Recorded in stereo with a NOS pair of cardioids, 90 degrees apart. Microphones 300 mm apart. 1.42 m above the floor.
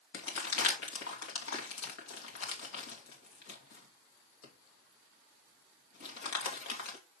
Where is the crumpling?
60° left, 2.5 m.